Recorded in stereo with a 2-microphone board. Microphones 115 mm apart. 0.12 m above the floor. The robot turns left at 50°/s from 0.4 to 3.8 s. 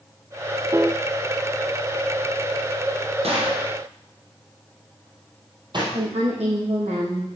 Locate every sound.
0.7 s a piano: 30° right (ahead or behind), 0.6 m; by 1.0 s 20° right (ahead or behind), 0.6 m
3.2 s a gunshot: 65° right (ahead or behind), 3.5 m; by 5.8 s 45° right (ahead or behind), 3.5 m
5.9 s a woman speaking: 75° right (ahead or behind), 5.5 m